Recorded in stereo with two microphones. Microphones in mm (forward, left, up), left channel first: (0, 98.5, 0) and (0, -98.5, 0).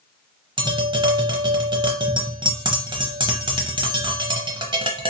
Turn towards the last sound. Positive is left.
turn(degrees=-25)  # may be behind; listen again after turning